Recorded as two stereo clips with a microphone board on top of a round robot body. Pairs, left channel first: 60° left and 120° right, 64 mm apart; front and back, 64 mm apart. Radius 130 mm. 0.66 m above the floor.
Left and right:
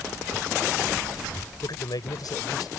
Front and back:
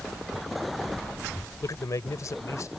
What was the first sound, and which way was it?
A man speaking, 35° left.